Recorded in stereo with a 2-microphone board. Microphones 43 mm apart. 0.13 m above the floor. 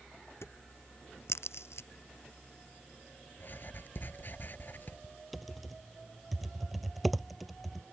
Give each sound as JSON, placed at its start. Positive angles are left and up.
{"t": 0.4, "sound": "a crack", "side_deg": 75}
{"t": 3.4, "sound": "writing", "side_deg": 50}
{"t": 5.3, "sound": "typing on a keyboard", "side_deg": 0}